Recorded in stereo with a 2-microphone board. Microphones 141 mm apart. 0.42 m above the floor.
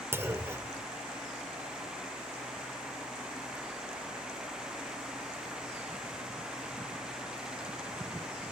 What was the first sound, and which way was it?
A clunk, 20° right (ahead or behind).